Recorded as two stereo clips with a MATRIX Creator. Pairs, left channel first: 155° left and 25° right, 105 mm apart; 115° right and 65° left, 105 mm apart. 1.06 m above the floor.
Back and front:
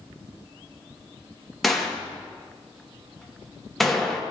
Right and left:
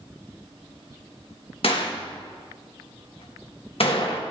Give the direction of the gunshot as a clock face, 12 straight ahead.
4 o'clock.